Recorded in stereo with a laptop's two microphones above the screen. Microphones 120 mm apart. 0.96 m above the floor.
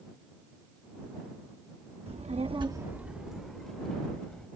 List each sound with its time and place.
2.1 s a child speaking: 60° right (ahead or behind); by 4.5 s 10° left (ahead or behind)